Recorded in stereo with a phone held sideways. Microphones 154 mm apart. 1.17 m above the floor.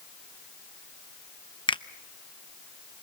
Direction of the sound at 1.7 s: 30° left (ahead or behind).